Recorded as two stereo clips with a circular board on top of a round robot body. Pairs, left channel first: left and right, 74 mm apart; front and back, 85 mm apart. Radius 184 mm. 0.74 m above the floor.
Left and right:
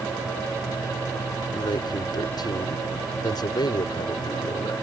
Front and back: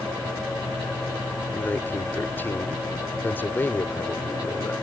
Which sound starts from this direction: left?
A man speaking, at 1.5 s.